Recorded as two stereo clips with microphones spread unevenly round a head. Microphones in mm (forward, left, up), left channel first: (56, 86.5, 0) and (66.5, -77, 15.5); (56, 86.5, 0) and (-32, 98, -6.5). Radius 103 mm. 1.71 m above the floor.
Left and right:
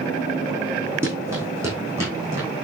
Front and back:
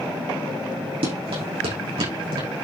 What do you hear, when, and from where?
1.0 s running footsteps: 160° right, 5 m